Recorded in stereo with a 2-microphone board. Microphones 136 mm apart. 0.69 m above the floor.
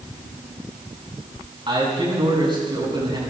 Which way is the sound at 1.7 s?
40° right (ahead or behind).